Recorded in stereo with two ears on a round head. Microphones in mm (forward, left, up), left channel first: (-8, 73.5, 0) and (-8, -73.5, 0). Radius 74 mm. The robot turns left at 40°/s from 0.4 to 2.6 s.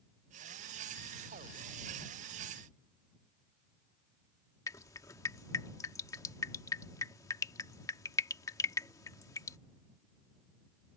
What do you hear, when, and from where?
4.7 s dripping: 20° left (ahead or behind)